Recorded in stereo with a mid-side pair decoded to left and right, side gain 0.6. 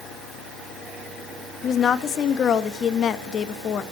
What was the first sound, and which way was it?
A woman speaking, 45° left.